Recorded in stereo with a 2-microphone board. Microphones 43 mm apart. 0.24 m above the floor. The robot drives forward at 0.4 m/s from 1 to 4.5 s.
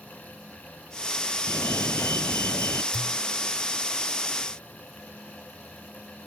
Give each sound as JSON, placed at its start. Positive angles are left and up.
{"t": 1.5, "sound": "a fire alarm", "side_deg": 70}
{"t": 2.9, "sound": "a pop", "side_deg": -45}